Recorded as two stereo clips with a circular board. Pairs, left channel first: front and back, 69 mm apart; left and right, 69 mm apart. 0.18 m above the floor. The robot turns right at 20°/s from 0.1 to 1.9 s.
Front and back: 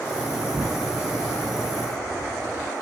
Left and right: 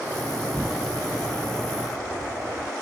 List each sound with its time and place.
0.5 s an explosion: 170° right; by 2.7 s 145° right